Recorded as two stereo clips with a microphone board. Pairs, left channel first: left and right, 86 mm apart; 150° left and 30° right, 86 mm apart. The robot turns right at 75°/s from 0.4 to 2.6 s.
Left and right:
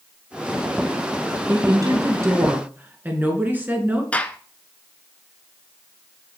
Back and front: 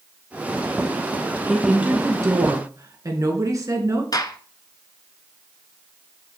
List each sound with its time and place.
1.5 s a woman speaking: 120° right, 2.0 m; by 4.0 s 35° right, 2.0 m
4.1 s a gunshot: 155° left, 0.8 m